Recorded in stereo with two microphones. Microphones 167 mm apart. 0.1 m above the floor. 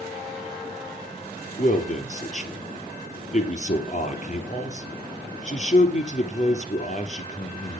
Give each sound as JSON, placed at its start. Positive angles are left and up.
{"t": 1.6, "sound": "a man speaking", "side_deg": 45, "distance_m": 3.0}